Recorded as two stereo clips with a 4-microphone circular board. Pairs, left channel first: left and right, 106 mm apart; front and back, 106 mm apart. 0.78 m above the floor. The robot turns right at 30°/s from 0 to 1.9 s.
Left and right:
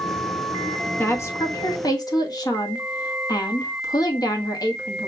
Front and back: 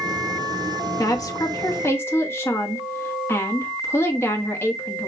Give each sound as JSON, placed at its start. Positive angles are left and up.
{"t": 1.0, "sound": "a woman speaking", "azimuth_deg": 30, "distance_m": 1.2}